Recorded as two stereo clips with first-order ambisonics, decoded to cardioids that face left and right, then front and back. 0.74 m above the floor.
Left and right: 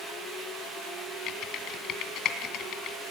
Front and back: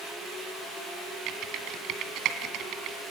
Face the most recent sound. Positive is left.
turn(degrees=135)